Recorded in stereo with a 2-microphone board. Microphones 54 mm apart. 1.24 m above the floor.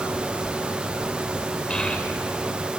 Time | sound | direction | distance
1.7 | a child speaking | 20° left (ahead or behind) | 2.5 m